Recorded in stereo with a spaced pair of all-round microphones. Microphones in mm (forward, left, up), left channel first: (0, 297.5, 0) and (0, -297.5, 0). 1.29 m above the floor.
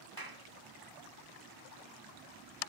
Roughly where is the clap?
Right.